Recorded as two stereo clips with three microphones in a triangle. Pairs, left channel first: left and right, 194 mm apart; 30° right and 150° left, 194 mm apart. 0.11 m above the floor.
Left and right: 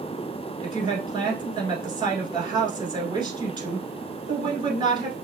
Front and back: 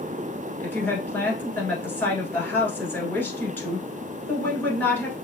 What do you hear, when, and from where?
0.6 s a woman speaking: 95° right, 1.3 m